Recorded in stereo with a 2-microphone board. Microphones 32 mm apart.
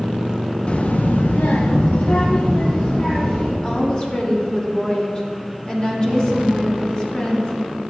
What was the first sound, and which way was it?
A child speaking, 35° left (ahead or behind).